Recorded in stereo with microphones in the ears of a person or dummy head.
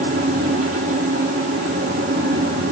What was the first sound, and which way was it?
A fan, 45° right (ahead or behind).